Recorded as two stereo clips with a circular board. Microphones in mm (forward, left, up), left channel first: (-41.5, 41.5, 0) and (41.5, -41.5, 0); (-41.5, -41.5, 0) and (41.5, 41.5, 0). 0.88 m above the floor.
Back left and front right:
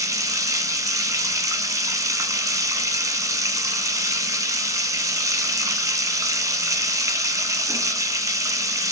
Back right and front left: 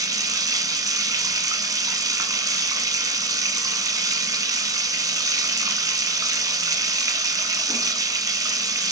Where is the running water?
5° left, 1.0 m.